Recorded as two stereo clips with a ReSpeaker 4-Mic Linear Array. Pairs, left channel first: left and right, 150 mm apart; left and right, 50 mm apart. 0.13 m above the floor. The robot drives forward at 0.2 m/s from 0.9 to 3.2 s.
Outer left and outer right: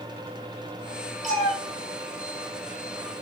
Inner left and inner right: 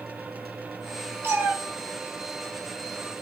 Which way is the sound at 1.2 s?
60° right (ahead or behind).